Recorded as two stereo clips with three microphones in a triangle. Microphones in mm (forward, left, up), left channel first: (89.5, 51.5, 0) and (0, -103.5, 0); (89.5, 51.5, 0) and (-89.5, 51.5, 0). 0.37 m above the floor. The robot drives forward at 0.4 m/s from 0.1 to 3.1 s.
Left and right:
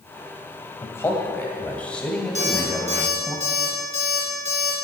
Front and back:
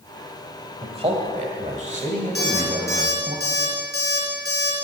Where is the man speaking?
130° left, 1.6 m; by 3.4 s 150° left, 2.5 m.